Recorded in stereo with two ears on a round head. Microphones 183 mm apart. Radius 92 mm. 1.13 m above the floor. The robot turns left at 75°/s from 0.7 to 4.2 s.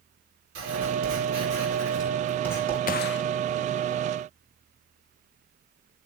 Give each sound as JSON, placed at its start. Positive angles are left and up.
{"t": 0.6, "sound": "writing", "azimuth_deg": -55, "distance_m": 9.0}
{"t": 2.9, "sound": "a gunshot", "side_deg": 45, "distance_m": 0.6}